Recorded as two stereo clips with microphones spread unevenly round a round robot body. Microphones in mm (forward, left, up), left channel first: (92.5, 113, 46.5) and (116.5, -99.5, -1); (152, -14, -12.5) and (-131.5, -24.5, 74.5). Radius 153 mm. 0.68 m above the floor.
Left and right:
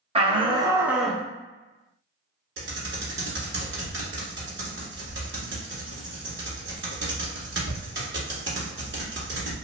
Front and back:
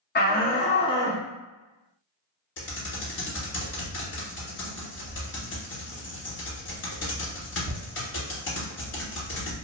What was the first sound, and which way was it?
A shout, 35° right.